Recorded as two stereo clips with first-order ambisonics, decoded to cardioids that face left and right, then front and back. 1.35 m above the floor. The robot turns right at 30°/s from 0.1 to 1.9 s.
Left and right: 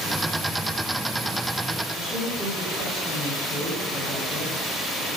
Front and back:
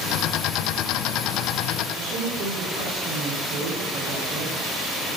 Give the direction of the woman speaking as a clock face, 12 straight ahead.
6 o'clock.